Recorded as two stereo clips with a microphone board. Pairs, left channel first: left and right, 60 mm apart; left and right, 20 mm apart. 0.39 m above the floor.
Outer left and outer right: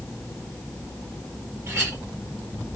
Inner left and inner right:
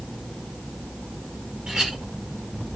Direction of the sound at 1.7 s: 55° right (ahead or behind).